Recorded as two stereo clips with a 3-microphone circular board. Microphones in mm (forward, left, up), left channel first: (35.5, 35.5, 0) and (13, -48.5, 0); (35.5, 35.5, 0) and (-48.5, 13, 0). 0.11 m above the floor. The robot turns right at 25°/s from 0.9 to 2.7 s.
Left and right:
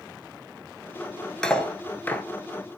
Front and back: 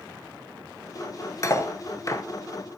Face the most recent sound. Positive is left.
turn(degrees=30)